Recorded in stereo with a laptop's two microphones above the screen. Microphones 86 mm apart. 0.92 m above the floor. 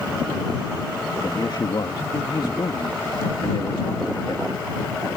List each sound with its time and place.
1.2 s a man speaking: 60° left (ahead or behind)